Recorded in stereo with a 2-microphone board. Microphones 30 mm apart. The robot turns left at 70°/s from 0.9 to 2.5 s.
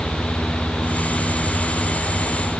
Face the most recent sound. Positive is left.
No sound to turn to.